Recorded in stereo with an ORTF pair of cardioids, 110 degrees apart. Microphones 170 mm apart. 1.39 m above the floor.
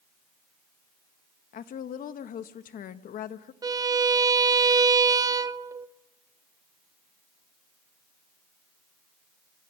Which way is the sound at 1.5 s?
55° left.